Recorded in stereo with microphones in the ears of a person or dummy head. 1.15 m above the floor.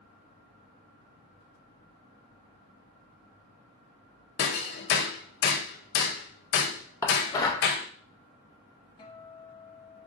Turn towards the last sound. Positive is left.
turn(degrees=25)  # may be behind; listen again after turning